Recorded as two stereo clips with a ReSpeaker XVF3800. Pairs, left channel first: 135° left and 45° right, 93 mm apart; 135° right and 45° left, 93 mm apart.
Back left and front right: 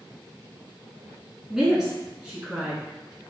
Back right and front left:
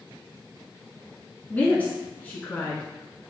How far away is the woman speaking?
About 1.1 m.